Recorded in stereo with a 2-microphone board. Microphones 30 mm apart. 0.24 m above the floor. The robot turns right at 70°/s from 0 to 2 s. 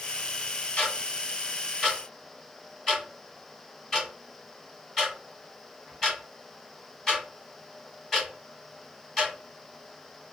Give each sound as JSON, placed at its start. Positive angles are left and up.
{"t": 0.8, "sound": "ticking", "side_deg": 30, "distance_m": 1.6}